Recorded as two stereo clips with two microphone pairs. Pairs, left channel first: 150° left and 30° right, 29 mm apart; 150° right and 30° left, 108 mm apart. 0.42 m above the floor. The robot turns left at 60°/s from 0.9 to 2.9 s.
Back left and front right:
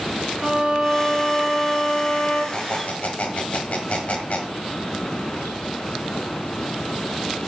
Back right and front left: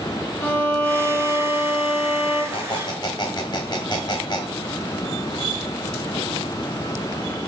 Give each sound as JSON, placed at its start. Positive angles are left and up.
{"t": 0.4, "sound": "a violin", "azimuth_deg": -80, "distance_m": 4.5}
{"t": 2.5, "sound": "a squeak", "azimuth_deg": -170, "distance_m": 1.8}